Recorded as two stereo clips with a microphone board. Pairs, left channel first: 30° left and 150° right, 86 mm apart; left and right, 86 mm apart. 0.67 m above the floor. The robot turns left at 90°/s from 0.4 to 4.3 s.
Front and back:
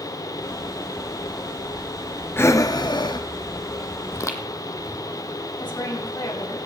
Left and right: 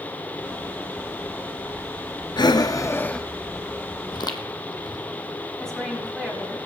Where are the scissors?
I don't hear scissors.